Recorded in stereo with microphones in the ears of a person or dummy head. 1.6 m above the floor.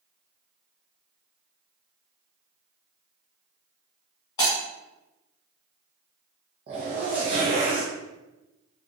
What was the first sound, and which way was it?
Breaking glass, 15° left (ahead or behind).